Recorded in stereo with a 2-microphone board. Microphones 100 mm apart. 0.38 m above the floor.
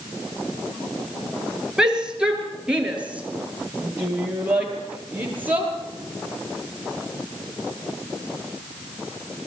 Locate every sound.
1.8 s a shout: 5° right (ahead or behind), 5.5 m; by 5.7 s 20° right (ahead or behind), 8.5 m